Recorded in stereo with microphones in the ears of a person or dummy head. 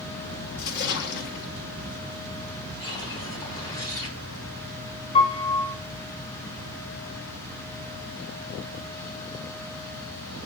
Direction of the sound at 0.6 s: 55° left (ahead or behind).